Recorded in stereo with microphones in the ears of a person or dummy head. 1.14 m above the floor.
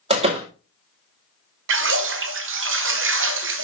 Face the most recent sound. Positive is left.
turn(degrees=-60)  # may be behind; listen again after turning